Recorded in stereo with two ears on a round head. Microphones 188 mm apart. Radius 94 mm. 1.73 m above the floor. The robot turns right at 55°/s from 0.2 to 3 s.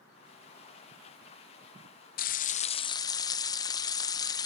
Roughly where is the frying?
Left.